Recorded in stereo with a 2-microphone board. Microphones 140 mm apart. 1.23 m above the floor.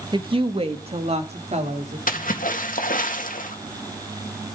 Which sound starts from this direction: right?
A woman speaking, at 0.1 s.